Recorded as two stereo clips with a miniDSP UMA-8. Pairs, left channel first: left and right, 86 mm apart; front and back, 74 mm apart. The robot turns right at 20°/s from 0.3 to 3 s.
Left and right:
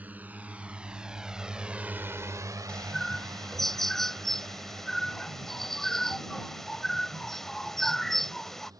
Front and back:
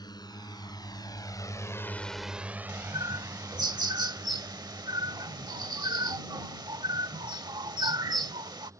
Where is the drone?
20° right; by 8.8 s 135° right.